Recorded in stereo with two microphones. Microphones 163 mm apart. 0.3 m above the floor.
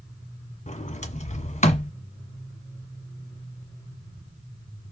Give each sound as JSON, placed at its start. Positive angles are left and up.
{"t": 0.7, "sound": "a sliding door", "side_deg": 45, "distance_m": 1.3}